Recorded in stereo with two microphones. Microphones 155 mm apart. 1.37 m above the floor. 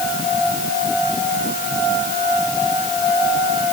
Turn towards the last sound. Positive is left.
No sound to turn to.